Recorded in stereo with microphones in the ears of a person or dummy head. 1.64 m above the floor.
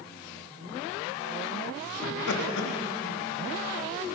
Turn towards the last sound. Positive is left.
turn(degrees=65)  # may be behind; listen again after turning